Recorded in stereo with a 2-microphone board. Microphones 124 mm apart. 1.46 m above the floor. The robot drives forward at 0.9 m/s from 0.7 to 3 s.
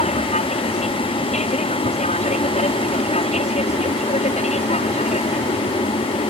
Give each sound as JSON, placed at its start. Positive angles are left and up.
{"t": 0.0, "sound": "an aircraft", "side_deg": 65}